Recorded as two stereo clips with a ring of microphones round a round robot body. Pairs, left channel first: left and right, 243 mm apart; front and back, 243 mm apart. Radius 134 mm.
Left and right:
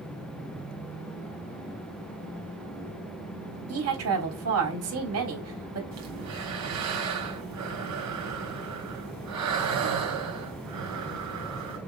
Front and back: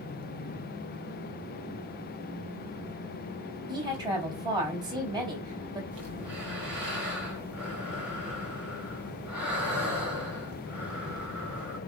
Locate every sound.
3.7 s a woman speaking: 105° right, 3.5 m
5.9 s breathing: 95° right, 2.5 m